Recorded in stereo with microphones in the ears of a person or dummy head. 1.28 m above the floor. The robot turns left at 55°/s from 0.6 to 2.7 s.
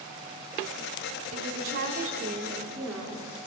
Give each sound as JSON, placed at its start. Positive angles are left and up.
{"t": 1.3, "sound": "a woman speaking", "azimuth_deg": -95, "distance_m": 4.0}